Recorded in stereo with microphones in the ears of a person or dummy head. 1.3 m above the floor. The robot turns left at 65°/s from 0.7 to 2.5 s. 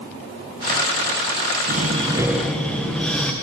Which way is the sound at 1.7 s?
130° right.